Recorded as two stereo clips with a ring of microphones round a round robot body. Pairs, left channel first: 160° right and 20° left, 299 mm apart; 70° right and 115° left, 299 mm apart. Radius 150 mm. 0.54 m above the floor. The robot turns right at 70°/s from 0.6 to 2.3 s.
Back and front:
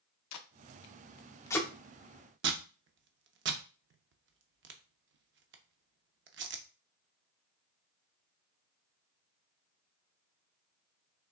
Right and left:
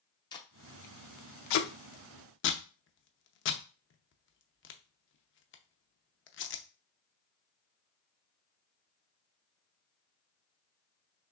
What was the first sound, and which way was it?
Tape being pulled, 140° right.